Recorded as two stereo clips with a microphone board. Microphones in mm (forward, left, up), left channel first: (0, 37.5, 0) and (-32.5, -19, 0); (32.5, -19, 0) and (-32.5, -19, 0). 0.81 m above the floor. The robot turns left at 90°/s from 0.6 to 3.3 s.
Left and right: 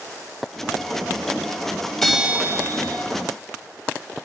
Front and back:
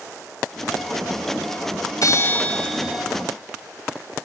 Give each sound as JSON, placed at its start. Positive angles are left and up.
{"t": 2.0, "sound": "a bell", "azimuth_deg": -25, "distance_m": 1.6}